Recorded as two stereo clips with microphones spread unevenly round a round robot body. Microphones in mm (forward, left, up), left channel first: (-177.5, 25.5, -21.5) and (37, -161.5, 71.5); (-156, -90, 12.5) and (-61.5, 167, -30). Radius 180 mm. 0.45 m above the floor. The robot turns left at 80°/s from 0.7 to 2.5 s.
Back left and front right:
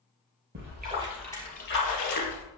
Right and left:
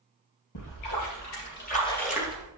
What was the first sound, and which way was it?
A splash, 90° right.